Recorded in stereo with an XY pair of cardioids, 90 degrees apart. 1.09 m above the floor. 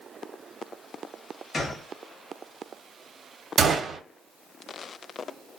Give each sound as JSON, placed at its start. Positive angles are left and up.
{"t": 1.5, "sound": "a gunshot", "azimuth_deg": 45, "distance_m": 1.2}
{"t": 3.6, "sound": "a gunshot", "azimuth_deg": -55, "distance_m": 0.9}